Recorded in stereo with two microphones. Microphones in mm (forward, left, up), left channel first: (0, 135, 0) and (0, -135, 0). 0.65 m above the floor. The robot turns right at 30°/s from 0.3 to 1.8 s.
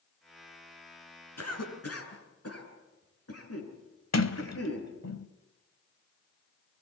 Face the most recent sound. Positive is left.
turn(degrees=70)  # may be behind; listen again after turning